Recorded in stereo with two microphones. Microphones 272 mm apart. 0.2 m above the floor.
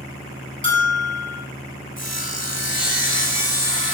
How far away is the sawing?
About 0.9 m.